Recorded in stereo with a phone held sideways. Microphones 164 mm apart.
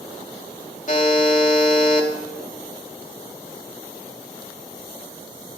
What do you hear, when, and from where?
0.9 s a buzzer: 50° left (ahead or behind), 2.5 m